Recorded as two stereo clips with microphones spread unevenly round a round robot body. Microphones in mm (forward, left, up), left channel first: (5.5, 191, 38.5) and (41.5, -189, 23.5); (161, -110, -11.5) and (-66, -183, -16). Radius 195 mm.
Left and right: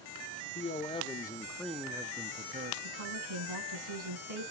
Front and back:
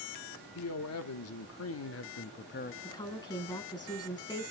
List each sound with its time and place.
0.6 s a man speaking: 20° left, 1.6 m; by 2.7 s 30° right, 0.8 m
2.8 s a woman speaking: 55° right, 7 m